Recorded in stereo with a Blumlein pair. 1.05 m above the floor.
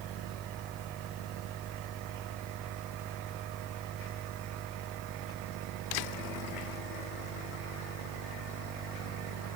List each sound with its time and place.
0.0 s a fan: 25° right